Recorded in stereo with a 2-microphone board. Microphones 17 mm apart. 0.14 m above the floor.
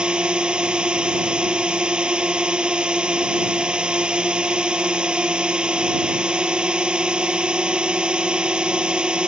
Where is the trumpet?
No trumpet in this recording.